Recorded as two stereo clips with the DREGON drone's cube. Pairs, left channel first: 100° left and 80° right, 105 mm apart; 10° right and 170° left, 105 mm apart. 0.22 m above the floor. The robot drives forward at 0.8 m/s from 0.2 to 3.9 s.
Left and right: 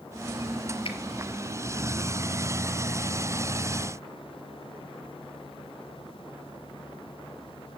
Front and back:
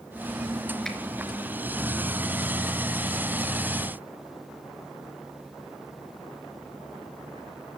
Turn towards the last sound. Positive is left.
turn(degrees=115)